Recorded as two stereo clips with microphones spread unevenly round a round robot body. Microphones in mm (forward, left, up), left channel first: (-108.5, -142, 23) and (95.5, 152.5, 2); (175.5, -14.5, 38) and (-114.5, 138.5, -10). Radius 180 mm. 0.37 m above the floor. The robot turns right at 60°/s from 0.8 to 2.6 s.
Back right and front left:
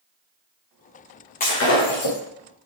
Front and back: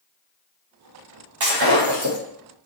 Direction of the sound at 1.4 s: 170° left.